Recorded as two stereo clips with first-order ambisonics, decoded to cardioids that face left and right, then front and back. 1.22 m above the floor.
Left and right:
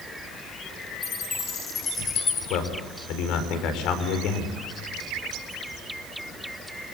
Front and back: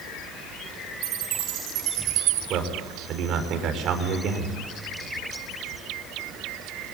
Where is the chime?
155° left, 5 m.